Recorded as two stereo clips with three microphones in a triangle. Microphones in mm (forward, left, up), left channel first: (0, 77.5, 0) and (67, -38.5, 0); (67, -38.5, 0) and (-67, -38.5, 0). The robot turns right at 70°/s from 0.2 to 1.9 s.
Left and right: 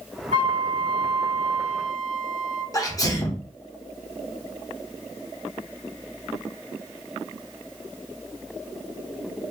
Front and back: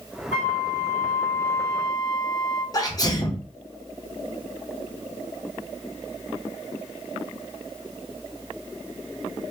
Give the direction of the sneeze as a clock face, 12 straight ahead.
10 o'clock.